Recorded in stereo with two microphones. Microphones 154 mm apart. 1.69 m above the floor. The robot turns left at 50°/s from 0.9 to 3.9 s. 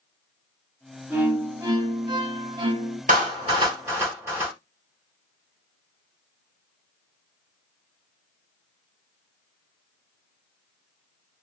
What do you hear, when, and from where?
1.1 s a violin: 20° right, 1.8 m; by 3.0 s 115° right, 1.8 m
3.1 s a clap: 60° right (ahead or behind), 3 m; by 4.5 s 20° right (ahead or behind), 3 m